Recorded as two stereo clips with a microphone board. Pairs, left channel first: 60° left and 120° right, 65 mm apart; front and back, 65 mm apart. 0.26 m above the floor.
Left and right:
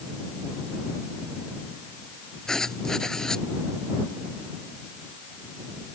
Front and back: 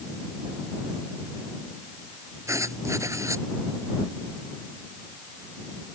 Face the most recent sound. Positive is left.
turn(degrees=140)